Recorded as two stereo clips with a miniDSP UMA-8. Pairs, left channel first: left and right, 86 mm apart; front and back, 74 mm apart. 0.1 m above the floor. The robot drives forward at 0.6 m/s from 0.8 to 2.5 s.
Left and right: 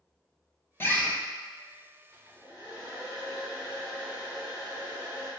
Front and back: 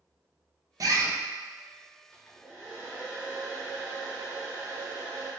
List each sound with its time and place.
0.8 s a bird: 150° left, 0.5 m; by 1.1 s 160° left, 0.7 m
2.1 s a hair dryer: 70° right, 1.7 m; by 5.3 s 90° right, 1.7 m